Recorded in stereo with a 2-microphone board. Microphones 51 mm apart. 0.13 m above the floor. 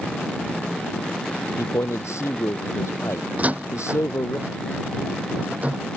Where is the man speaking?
70° left (ahead or behind).